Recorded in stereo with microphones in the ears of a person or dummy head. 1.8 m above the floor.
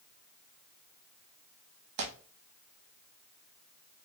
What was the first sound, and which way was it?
Tearing paper, 60° right (ahead or behind).